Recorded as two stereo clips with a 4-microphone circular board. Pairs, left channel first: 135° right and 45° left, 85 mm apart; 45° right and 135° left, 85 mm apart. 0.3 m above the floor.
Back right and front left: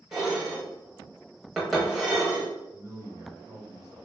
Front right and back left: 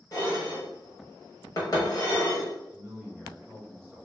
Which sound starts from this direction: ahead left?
A man speaking, at 2.7 s.